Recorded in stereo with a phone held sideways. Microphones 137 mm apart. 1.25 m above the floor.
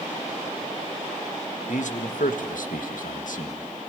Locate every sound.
1.7 s a man speaking: 60° left (ahead or behind), 1.9 m; by 3.6 s 70° left (ahead or behind), 1.9 m